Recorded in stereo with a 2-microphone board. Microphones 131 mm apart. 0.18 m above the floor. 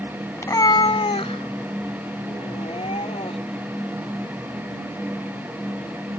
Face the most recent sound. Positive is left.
turn(degrees=50)  # may be behind; listen again after turning